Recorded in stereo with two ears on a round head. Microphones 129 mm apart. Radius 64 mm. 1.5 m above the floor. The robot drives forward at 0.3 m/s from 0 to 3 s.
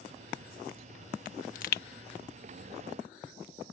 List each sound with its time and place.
1.2 s a pop: 60° left (ahead or behind); by 1.8 s 65° left (ahead or behind)